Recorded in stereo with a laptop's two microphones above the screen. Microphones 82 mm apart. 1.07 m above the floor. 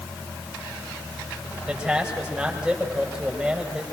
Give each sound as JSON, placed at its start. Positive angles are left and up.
{"t": 1.7, "sound": "a man speaking", "side_deg": -10, "distance_m": 6.0}